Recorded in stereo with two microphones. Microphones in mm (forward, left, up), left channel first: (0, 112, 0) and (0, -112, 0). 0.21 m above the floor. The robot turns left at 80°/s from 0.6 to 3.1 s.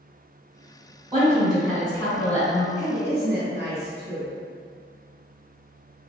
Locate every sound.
1.1 s a woman speaking: 145° right, 1.4 m; by 2.7 s 90° left, 1.4 m
2.8 s a woman speaking: 35° right (ahead or behind), 1.6 m; by 4.3 s 30° right (ahead or behind), 1.6 m